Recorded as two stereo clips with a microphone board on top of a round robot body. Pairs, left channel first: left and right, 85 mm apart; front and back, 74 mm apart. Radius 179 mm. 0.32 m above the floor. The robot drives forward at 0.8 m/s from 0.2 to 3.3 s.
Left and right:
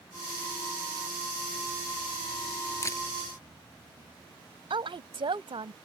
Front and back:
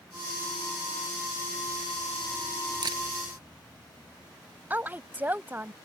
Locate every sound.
2.8 s a camera shutter: 150° left
4.7 s a woman speaking: 115° right